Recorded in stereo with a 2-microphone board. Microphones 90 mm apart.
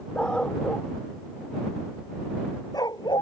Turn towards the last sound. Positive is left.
turn(degrees=60)  # may be behind; listen again after turning